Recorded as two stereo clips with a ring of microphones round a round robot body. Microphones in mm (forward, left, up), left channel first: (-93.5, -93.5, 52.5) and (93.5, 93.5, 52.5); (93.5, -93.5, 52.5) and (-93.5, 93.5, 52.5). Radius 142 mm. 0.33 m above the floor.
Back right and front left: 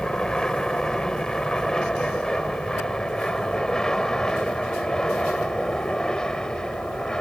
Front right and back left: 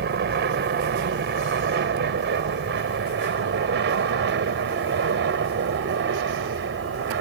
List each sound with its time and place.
0.0 s an aircraft: 140° left